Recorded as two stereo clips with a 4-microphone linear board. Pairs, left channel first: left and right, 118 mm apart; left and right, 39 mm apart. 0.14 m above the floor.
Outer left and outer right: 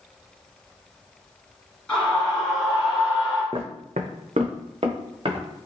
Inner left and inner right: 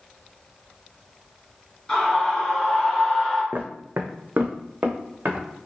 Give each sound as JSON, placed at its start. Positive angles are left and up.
{"t": 1.9, "sound": "a scream", "side_deg": 10, "distance_m": 1.4}
{"t": 3.5, "sound": "footsteps", "side_deg": -50, "distance_m": 0.5}